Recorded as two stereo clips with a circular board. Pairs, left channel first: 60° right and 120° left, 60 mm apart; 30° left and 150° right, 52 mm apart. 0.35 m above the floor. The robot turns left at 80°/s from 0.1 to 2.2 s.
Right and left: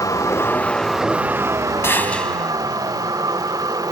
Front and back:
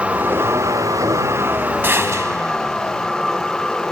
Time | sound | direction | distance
0.0 | a vehicle | 80° right | ?
1.8 | a gunshot | 105° right | ?